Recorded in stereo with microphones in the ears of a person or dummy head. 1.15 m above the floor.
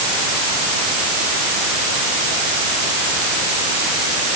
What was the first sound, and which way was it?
Only background noise.